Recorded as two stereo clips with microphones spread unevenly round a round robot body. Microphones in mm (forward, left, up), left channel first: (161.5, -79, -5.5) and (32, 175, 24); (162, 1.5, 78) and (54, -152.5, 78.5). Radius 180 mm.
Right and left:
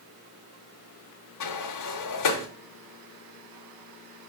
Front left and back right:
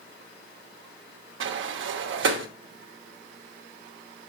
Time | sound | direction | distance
1.4 | a sliding door | 110° right | 0.8 m